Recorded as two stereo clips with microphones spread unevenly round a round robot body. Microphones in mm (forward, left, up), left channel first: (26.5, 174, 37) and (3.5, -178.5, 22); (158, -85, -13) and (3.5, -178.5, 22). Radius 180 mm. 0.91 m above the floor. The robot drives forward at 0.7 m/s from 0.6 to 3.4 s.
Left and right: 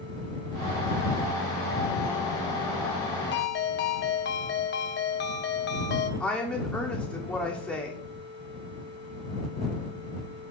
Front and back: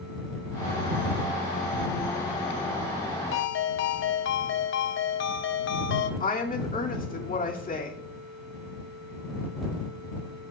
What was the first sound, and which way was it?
A ringtone, 25° left.